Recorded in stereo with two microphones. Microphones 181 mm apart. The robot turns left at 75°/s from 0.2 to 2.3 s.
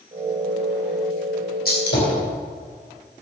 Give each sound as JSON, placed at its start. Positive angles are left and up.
{"t": 1.6, "sound": "a gunshot", "side_deg": 60, "distance_m": 3.5}